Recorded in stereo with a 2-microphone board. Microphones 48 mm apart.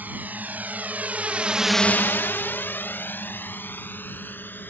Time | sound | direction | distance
0.0 | a drone | 40° right (ahead or behind) | ?